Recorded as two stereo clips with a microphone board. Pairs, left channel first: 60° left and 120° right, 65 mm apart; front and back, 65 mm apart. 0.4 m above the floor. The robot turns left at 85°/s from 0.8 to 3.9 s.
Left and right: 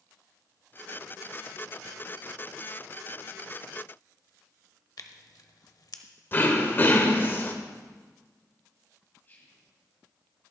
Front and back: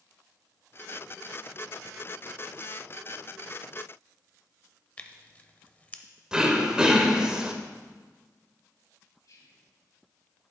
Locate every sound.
5.0 s tearing paper: 65° left, 0.6 m
6.3 s throat clearing: 105° left, 0.8 m
9.2 s whispering: 5° left, 3 m